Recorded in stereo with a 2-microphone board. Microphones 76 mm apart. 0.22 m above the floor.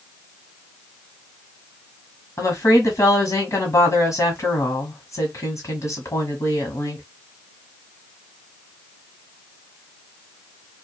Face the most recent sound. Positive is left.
turn(degrees=45)  # may be behind; listen again after turning